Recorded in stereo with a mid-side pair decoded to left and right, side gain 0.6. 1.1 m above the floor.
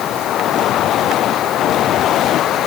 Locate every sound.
Only background noise.